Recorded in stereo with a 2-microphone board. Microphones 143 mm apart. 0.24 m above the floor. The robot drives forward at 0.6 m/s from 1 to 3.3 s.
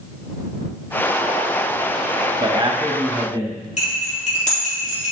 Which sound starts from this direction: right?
A man speaking, at 2.4 s.